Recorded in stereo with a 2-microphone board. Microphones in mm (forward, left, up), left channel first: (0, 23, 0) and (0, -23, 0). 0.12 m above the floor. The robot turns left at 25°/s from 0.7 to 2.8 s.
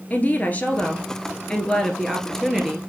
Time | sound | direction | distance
0.1 | a woman speaking | 45° left | 1.7 m